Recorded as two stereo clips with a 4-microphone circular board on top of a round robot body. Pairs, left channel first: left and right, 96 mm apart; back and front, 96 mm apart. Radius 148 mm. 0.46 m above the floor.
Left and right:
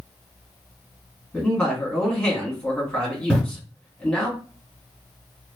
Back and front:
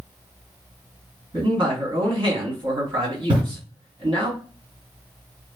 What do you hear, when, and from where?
1.3 s a man speaking: 15° left, 2 m
3.3 s breathing: 15° left, 2 m